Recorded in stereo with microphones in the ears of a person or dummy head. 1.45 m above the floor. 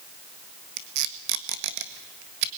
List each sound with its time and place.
0.8 s tape being pulled: 65° right (ahead or behind), 1.6 m